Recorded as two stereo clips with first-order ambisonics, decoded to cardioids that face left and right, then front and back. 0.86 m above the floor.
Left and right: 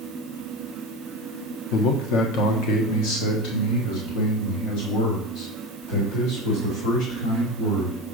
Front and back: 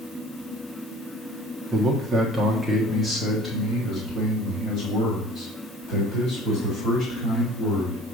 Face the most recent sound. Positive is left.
turn(degrees=70)